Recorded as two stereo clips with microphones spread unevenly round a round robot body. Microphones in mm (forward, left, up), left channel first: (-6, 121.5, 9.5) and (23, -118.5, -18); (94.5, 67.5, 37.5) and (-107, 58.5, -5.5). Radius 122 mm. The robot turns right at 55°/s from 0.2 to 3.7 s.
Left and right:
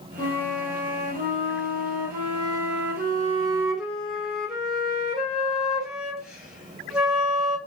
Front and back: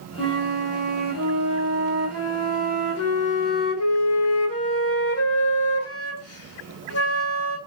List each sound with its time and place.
0.2 s a flute: 170° left, 1.7 m; by 7.6 s straight ahead, 1.7 m